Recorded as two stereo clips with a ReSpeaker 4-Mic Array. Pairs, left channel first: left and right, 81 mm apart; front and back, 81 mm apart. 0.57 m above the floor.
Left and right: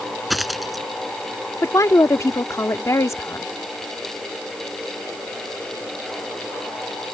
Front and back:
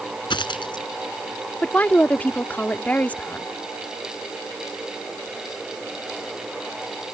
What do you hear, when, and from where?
0.3 s a dropped coin: straight ahead
1.6 s a woman speaking: 60° left